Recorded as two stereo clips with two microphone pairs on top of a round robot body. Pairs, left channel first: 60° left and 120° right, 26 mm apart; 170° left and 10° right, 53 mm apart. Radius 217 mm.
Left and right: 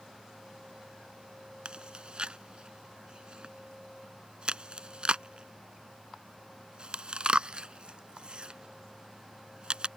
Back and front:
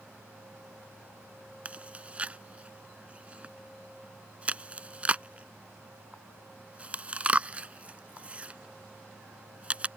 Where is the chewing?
75° right.